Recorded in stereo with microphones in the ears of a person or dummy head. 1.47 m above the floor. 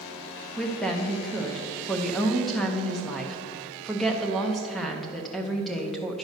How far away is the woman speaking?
About 0.8 m.